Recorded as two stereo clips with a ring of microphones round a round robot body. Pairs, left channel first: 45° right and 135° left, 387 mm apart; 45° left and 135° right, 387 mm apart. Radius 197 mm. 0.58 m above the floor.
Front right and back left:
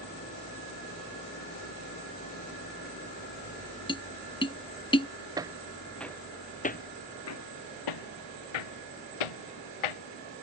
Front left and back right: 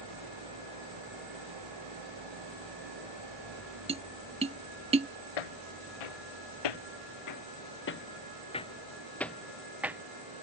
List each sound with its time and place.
0.0 s an engine running: 110° right
3.9 s tapping: 95° right
5.4 s footsteps: 55° left; by 10.0 s 50° right